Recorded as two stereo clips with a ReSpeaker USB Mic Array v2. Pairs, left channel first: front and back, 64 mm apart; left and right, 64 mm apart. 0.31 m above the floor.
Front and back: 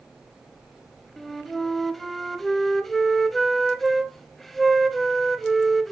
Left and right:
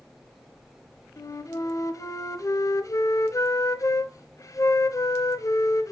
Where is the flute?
85° left, 0.5 m.